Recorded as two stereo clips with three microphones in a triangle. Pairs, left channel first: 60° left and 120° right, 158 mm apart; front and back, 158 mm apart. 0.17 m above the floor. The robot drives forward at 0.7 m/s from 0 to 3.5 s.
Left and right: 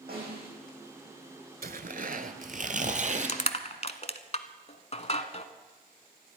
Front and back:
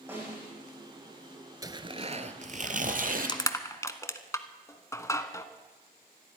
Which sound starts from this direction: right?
A snare drum, at 0.1 s.